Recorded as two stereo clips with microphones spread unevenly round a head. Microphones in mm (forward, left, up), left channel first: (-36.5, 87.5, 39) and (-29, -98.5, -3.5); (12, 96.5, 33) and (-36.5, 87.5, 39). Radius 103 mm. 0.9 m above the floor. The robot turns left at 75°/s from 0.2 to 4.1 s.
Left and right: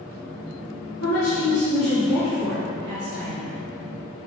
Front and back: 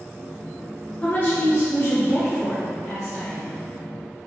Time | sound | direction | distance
1.0 | a woman speaking | 70° left | 1.7 m